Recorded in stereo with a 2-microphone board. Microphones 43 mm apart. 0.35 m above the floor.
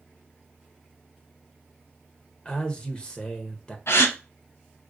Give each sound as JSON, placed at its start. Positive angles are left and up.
{"t": 2.5, "sound": "a man speaking", "side_deg": 20, "distance_m": 0.8}
{"t": 3.9, "sound": "a gasp", "side_deg": 75, "distance_m": 0.7}